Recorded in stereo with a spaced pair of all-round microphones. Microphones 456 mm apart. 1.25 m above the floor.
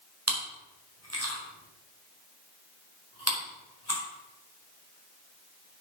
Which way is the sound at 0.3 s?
35° right (ahead or behind).